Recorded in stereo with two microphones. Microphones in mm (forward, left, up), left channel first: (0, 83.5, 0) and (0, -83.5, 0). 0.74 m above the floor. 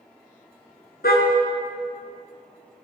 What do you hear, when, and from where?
1.0 s a car horn: 70° left (ahead or behind), 5 m